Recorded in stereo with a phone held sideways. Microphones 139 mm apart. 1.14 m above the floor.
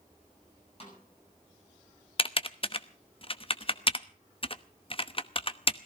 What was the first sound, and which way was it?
A snare drum, 45° left (ahead or behind).